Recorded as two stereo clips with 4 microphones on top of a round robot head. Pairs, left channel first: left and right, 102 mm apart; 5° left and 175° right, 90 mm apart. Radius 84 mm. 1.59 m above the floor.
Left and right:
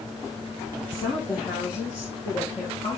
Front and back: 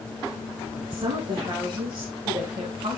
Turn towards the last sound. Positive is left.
turn(degrees=150)